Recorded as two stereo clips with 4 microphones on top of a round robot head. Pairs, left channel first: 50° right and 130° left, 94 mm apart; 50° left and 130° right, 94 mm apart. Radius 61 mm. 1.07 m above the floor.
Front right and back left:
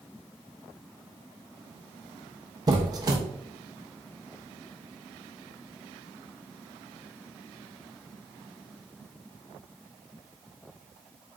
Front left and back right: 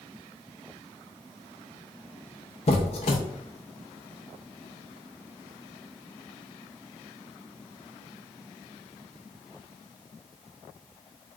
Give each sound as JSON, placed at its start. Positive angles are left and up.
{"t": 2.7, "sound": "a squeak", "azimuth_deg": 80, "distance_m": 0.6}